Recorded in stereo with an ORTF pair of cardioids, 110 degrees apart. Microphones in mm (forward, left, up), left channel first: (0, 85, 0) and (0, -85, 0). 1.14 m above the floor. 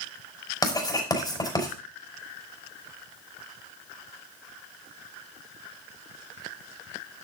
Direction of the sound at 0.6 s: 20° left.